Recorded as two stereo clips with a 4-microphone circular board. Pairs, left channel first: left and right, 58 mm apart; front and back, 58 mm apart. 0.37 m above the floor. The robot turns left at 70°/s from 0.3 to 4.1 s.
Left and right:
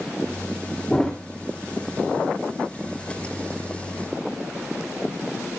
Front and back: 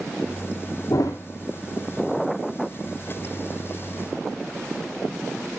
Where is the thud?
15° left, 2.5 m; by 1.2 s 5° right, 2.5 m.